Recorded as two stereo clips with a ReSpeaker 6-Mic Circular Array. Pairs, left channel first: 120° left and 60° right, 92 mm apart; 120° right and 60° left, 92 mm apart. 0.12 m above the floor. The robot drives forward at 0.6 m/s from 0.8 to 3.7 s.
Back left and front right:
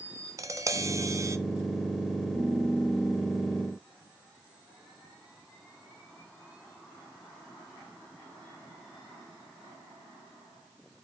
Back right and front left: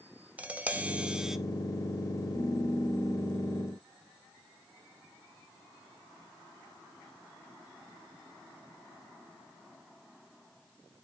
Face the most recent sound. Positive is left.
turn(degrees=-170)